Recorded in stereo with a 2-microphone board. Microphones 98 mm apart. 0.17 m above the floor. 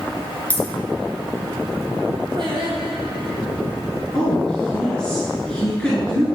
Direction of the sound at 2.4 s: 50° right (ahead or behind).